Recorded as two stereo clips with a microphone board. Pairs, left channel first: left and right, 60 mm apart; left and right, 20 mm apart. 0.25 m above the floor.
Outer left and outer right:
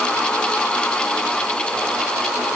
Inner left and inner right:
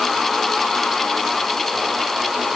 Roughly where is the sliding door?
I don't hear a sliding door.